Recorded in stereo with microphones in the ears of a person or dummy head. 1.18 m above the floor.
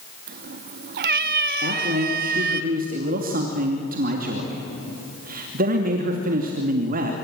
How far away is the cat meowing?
About 0.8 m.